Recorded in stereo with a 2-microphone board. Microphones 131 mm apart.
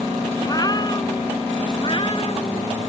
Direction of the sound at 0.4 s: 30° left (ahead or behind).